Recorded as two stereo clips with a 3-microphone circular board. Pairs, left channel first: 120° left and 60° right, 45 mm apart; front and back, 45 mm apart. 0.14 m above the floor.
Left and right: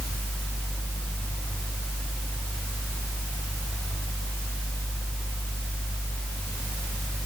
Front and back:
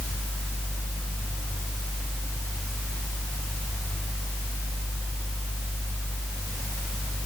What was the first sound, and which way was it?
Only background noise.